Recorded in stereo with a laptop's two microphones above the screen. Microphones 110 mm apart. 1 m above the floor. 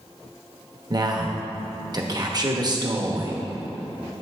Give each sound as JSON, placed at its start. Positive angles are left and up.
{"t": 0.9, "sound": "a man speaking", "side_deg": -35, "distance_m": 1.0}